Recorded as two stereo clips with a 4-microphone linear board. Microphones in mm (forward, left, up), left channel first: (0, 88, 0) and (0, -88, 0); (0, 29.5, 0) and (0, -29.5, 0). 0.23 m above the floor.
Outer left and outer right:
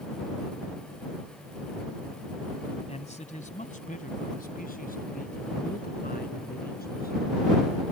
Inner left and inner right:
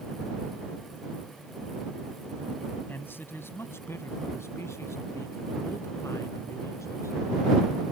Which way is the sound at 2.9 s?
40° left (ahead or behind).